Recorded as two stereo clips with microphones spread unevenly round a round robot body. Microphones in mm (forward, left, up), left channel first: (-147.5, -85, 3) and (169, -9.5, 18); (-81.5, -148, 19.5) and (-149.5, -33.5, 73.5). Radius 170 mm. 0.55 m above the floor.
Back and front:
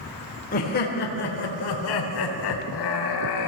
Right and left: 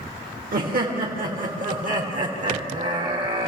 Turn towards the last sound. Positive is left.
turn(degrees=175)